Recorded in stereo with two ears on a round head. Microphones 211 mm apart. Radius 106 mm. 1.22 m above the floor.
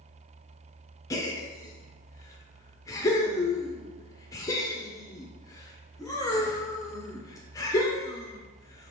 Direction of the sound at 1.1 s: 15° left (ahead or behind).